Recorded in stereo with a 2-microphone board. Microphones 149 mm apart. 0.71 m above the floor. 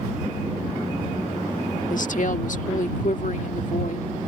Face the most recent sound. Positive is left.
turn(degrees=60)  # may be behind; listen again after turning